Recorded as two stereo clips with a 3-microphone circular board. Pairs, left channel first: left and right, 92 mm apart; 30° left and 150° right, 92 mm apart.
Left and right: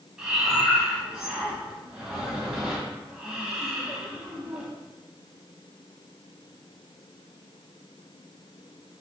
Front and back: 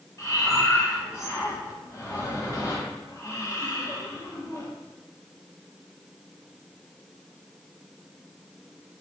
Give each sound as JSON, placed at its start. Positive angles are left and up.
{"t": 0.2, "sound": "breathing", "azimuth_deg": -10, "distance_m": 1.2}